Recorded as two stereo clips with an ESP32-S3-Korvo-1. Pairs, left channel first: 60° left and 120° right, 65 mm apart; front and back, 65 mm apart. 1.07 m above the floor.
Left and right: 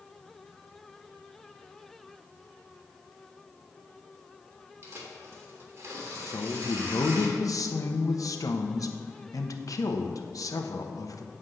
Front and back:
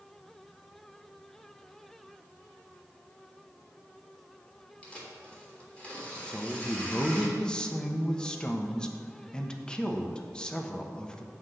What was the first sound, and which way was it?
Tearing paper, 70° right.